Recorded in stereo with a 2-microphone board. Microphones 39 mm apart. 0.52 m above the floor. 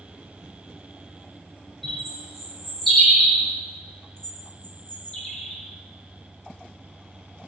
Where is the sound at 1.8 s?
Centre (ahead or behind), 1.2 m.